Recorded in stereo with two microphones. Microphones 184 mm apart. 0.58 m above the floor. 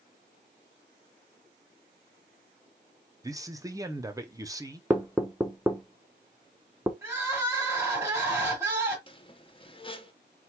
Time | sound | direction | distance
3.2 | a man speaking | 20° right (ahead or behind) | 0.7 m
4.9 | knocking | 10° right (ahead or behind) | 0.8 m
7.0 | crying | 15° right (ahead or behind) | 2.0 m
9.1 | a squeak | 30° left (ahead or behind) | 0.6 m